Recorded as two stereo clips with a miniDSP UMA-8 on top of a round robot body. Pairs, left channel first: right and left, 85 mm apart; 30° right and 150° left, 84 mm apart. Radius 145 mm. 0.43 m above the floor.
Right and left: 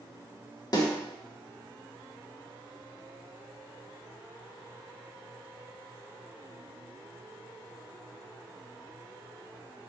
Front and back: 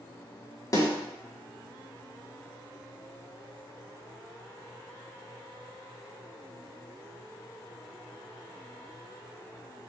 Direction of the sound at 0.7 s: 70° right.